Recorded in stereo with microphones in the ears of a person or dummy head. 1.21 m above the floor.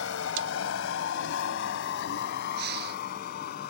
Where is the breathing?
60° right (ahead or behind).